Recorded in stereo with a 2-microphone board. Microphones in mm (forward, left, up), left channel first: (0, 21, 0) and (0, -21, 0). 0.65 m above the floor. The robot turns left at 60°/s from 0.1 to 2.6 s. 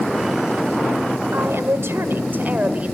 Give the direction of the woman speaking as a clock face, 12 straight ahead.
2 o'clock.